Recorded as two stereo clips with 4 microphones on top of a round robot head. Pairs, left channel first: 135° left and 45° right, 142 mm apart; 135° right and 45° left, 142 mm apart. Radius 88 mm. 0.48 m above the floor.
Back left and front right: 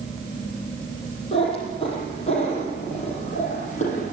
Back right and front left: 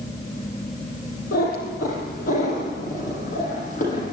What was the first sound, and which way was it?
A cat meowing, 165° right.